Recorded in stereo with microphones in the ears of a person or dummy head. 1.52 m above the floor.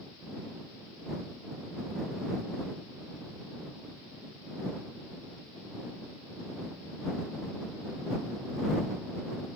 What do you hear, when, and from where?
Only background noise.